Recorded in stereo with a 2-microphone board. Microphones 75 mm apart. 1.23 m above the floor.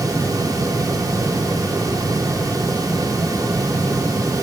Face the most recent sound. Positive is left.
No sound to turn to.